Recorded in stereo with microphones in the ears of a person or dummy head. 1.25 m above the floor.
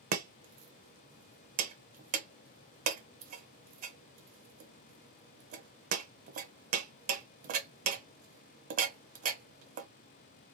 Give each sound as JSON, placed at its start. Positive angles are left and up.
{"t": 0.1, "sound": "chopping", "side_deg": -45, "distance_m": 0.5}